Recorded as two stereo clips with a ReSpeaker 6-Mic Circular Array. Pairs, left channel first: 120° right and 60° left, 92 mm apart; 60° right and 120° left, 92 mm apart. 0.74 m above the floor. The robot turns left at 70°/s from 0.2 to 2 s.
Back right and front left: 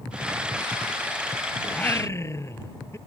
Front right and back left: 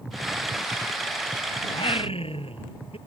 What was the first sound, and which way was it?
Singing, 40° right.